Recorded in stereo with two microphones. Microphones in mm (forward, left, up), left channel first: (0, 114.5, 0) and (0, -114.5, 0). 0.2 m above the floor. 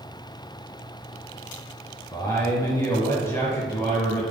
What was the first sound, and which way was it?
A man speaking, 10° left (ahead or behind).